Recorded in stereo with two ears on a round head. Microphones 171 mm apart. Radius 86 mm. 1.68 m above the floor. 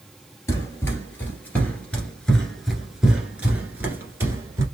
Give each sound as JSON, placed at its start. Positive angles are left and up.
{"t": 0.5, "sound": "running footsteps", "side_deg": 15, "distance_m": 2.0}